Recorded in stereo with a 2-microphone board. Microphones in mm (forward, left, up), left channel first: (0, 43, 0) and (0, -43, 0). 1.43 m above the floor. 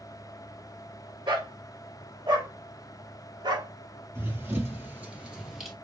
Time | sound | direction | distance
1.3 | a dog barking | 70° right (ahead or behind) | 2 m
4.2 | running footsteps | 30° right (ahead or behind) | 1.8 m